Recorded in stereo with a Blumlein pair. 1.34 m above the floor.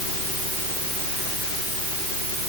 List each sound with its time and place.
Only background noise.